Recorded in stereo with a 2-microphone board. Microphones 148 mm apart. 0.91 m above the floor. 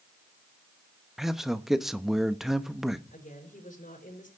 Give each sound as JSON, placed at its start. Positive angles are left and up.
{"t": 1.2, "sound": "a man speaking", "side_deg": -5, "distance_m": 0.9}
{"t": 3.1, "sound": "a woman speaking", "side_deg": 65, "distance_m": 4.5}